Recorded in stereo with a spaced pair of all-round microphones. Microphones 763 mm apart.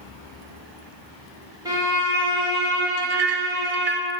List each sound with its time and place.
1.6 s a violin: 5° right (ahead or behind), 1.7 m
3.0 s a clink: 50° right (ahead or behind), 0.7 m